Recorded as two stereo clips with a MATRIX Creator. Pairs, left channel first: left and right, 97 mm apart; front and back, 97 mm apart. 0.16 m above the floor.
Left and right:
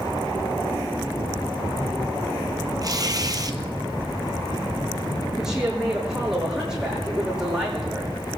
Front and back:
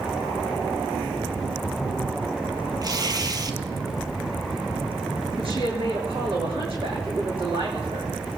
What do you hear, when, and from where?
2.8 s tearing paper: 135° right, 1.1 m
5.4 s a woman speaking: 175° right, 7.5 m